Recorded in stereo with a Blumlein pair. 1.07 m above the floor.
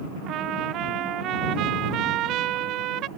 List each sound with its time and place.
0.3 s a trumpet: 35° right